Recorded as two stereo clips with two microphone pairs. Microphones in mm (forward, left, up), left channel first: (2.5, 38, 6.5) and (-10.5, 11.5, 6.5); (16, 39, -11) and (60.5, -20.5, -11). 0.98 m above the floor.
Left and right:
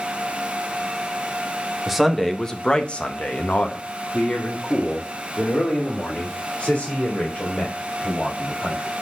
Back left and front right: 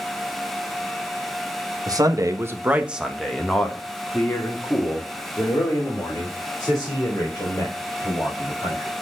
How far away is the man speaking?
About 1.3 m.